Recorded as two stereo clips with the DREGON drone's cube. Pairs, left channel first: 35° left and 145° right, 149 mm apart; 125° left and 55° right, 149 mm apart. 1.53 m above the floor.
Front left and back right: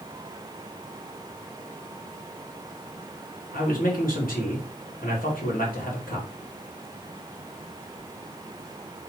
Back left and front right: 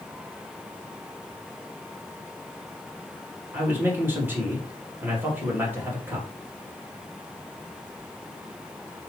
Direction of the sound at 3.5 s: 20° left.